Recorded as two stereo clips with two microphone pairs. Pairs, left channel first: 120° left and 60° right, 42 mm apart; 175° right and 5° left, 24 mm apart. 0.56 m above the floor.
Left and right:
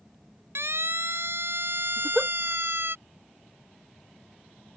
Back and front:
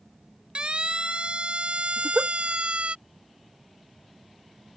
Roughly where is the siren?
Ahead right.